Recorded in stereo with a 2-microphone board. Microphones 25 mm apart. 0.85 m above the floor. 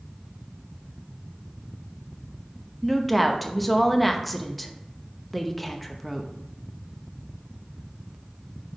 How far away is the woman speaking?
About 0.8 m.